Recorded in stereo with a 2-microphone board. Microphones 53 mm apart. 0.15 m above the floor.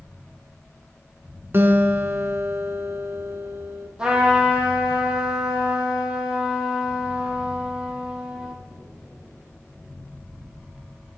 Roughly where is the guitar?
Right.